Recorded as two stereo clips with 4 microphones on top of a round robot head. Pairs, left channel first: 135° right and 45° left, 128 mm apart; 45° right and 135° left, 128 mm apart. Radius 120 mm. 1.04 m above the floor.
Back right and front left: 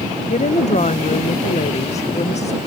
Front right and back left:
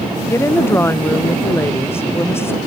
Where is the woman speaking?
115° right.